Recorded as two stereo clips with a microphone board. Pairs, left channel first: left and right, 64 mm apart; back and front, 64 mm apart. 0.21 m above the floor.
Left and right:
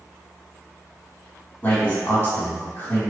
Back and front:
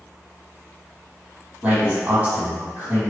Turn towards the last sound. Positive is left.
turn(degrees=45)